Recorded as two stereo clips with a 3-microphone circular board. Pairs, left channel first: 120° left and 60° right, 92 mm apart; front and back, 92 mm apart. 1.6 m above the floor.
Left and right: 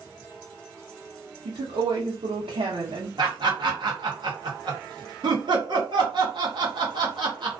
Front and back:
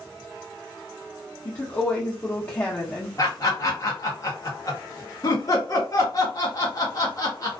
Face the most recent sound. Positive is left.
turn(degrees=-45)